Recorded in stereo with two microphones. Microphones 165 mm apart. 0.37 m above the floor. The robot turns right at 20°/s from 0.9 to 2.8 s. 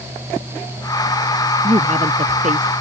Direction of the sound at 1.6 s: 35° right (ahead or behind).